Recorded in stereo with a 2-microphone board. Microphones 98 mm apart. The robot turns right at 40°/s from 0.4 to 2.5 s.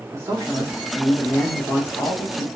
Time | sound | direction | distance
0.1 | a man speaking | 30° right | 1.2 m